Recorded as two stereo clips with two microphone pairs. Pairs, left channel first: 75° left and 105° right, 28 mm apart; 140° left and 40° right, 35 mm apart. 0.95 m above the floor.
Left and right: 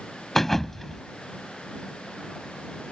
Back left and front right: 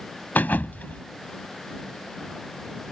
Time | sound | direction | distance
0.3 | a thud | 150° left | ?